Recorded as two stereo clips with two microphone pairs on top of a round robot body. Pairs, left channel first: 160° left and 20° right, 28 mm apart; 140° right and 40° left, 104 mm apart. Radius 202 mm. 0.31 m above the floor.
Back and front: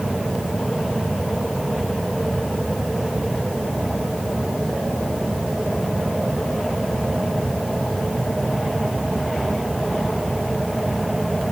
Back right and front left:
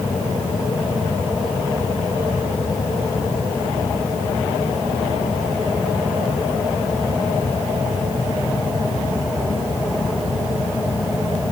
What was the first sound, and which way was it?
Only background noise.